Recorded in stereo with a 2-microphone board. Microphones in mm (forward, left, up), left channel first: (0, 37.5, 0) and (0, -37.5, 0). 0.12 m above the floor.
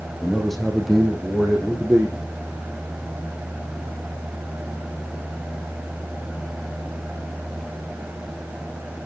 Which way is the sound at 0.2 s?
5° left (ahead or behind).